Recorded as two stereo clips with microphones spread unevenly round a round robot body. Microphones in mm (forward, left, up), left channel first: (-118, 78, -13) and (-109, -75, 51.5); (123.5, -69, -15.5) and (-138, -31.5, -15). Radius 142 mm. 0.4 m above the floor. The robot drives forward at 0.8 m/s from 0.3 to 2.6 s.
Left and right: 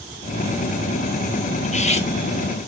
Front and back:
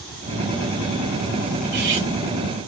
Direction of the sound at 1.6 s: 110° left.